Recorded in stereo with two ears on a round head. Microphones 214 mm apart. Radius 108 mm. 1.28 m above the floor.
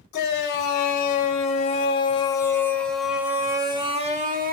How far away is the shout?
About 4 m.